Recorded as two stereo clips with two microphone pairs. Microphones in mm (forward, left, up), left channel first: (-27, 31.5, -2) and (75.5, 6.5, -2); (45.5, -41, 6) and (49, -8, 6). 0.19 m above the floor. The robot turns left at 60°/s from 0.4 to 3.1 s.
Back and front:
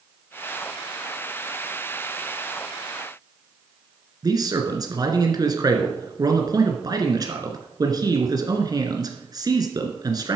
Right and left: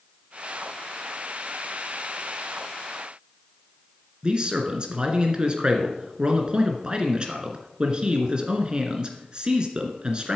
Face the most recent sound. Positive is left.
turn(degrees=30)